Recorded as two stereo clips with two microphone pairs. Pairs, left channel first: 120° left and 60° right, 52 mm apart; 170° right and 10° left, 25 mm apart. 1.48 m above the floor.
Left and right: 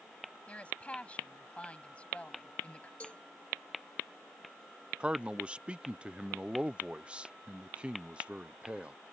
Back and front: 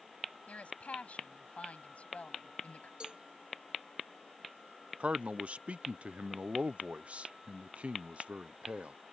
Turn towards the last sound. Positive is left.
turn(degrees=5)